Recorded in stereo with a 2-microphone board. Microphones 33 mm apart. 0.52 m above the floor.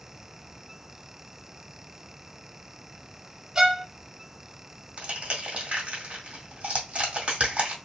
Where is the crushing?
40° right (ahead or behind), 2 m.